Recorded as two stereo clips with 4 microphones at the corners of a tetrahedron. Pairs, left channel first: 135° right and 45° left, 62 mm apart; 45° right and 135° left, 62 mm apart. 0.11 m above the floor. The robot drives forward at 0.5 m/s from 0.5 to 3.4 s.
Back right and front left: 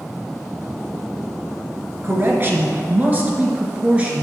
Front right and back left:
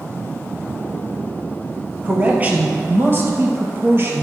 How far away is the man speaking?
About 1.7 m.